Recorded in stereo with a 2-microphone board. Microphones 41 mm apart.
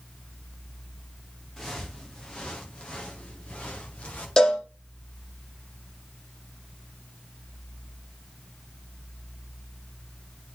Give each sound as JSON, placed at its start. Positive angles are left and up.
{"t": 1.6, "sound": "footsteps", "side_deg": 10, "distance_m": 5.0}
{"t": 4.4, "sound": "a cowbell", "side_deg": 15, "distance_m": 5.5}